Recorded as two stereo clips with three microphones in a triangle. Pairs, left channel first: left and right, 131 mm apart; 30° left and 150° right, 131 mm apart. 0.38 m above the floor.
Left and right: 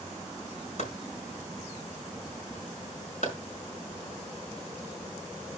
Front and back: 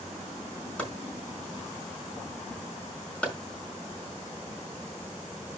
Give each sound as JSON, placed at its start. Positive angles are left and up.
{"t": 0.8, "sound": "chopping", "azimuth_deg": 110, "distance_m": 5.0}